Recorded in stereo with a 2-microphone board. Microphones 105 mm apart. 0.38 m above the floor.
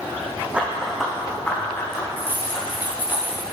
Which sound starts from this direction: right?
Keys jangling, at 2.2 s.